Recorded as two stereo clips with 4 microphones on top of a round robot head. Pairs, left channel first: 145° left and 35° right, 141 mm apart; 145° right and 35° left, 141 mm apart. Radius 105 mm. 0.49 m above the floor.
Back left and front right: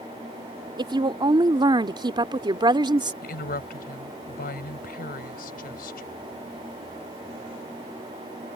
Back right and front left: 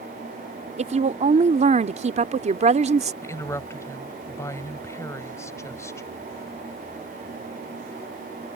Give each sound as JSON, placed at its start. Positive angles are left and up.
{"t": 0.8, "sound": "a woman speaking", "azimuth_deg": 15}
{"t": 3.2, "sound": "a woman speaking", "azimuth_deg": 145}